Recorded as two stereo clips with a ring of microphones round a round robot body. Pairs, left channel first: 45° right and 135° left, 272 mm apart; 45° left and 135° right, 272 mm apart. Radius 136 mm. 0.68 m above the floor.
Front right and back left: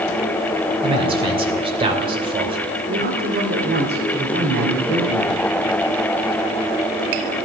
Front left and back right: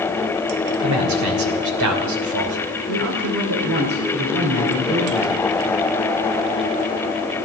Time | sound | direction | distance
0.8 | a man speaking | 155° right | 2.5 m
2.9 | a man speaking | 170° right | 2.5 m